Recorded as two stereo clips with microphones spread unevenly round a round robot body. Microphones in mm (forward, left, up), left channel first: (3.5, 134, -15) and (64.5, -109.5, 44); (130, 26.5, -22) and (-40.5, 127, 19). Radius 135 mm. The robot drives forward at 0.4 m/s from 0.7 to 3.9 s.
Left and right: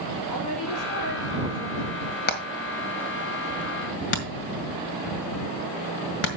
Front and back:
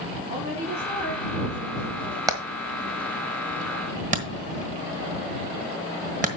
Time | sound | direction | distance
0.3 | a woman speaking | 90° left | 3.5 m
2.3 | hammering | 70° left | 1.8 m